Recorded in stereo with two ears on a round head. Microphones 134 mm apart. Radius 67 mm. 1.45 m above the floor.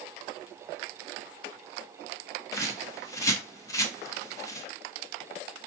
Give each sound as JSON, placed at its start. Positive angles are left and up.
{"t": 2.5, "sound": "a bird", "side_deg": 20, "distance_m": 0.7}